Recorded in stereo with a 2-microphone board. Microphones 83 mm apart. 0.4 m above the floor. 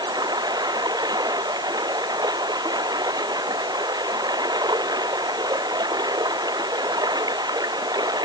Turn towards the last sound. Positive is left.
turn(degrees=-55)  # may be behind; listen again after turning